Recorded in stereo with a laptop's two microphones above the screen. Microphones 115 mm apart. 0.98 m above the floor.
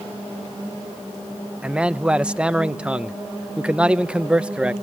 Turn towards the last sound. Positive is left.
turn(degrees=-10)  # may be behind; listen again after turning